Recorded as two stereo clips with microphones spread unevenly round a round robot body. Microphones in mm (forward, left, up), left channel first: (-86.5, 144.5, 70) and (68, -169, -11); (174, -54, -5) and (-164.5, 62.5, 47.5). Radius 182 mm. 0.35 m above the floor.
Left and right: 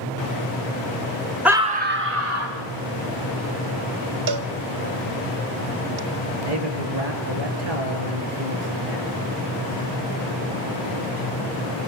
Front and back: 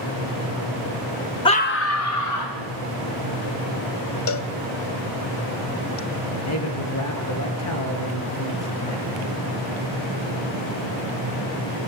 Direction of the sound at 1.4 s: 25° right.